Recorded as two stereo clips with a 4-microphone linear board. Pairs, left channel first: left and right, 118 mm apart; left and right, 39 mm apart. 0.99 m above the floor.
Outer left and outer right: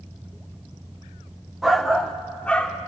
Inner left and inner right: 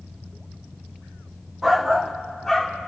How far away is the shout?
About 1.0 m.